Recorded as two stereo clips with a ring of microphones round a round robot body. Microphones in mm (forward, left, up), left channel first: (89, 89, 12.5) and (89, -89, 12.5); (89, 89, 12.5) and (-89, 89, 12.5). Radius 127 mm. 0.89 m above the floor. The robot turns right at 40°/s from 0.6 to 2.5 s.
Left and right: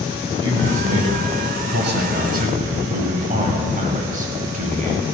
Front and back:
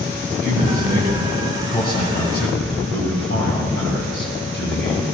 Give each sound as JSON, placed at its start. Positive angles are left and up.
{"t": 0.3, "sound": "a man speaking", "azimuth_deg": -125, "distance_m": 4.5}